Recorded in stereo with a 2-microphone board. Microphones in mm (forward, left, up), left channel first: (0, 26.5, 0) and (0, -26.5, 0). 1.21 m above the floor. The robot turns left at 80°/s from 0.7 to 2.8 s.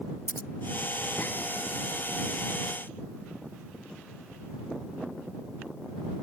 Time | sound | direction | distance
0.3 | scissors | 60° left (ahead or behind) | ?